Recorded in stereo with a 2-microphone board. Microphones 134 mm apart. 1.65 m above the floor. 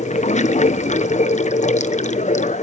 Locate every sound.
0.0 s running water: 65° left (ahead or behind), 0.8 m